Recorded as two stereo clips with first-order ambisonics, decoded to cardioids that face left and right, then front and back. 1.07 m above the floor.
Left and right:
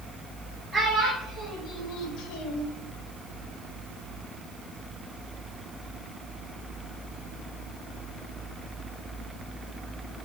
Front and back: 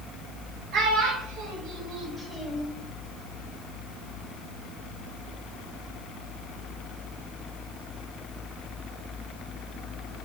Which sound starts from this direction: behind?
A child speaking, at 0.7 s.